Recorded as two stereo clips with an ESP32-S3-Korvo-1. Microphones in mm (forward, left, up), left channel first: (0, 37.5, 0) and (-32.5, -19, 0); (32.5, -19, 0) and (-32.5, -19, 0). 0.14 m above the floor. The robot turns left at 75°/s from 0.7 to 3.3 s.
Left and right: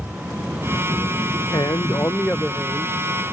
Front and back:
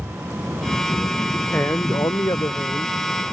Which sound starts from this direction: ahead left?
A man speaking, at 1.5 s.